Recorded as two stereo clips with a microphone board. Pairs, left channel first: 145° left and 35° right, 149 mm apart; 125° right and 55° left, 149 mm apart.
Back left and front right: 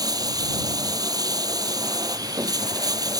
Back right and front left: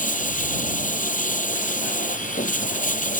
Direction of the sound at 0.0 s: 100° right.